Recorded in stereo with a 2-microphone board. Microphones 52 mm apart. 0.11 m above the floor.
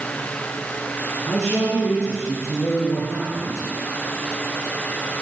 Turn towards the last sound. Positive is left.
turn(degrees=45)  # may be behind; listen again after turning